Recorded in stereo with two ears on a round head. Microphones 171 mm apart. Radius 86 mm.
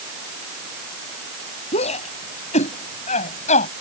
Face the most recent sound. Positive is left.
turn(degrees=40)  # may be behind; listen again after turning